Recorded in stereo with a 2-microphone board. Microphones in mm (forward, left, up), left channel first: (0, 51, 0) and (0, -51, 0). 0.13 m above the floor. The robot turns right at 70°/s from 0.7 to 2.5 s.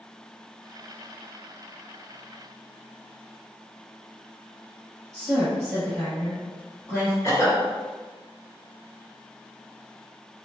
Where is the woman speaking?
5° left (ahead or behind), 2.0 m.